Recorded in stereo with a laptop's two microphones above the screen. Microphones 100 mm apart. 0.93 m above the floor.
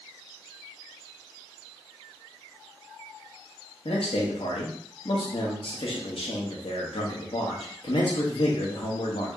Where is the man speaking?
70° left (ahead or behind), 1.0 m.